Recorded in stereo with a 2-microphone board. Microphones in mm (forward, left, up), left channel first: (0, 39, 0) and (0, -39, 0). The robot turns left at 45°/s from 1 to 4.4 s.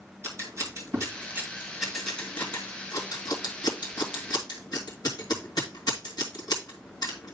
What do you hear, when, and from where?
0.2 s scissors: 40° right (ahead or behind), 2.5 m; by 7.3 s 65° left (ahead or behind), 2.5 m